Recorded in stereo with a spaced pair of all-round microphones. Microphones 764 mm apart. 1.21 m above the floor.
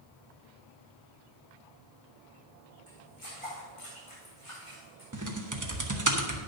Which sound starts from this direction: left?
Footsteps, at 2.9 s.